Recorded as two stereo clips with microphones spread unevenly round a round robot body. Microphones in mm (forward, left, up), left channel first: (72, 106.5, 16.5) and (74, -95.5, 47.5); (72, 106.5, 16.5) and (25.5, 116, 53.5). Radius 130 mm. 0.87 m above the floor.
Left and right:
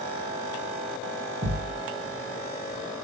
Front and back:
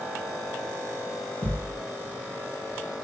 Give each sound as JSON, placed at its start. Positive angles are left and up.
{"t": 1.4, "sound": "a thud", "azimuth_deg": -45, "distance_m": 2.5}